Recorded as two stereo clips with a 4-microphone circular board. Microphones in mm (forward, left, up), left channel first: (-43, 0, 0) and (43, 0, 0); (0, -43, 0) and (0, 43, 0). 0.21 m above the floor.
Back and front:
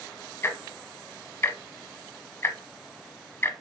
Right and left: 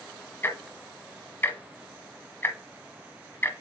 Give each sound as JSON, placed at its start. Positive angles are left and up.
{"t": 0.4, "sound": "ticking", "azimuth_deg": -140, "distance_m": 1.0}